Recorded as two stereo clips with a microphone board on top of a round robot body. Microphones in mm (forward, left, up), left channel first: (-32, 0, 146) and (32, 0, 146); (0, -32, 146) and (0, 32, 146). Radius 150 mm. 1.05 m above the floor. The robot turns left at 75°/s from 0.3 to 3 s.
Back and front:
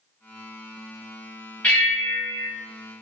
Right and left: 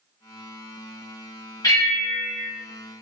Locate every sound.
1.6 s a bell: 110° right, 1.1 m; by 2.5 s 175° right, 1.1 m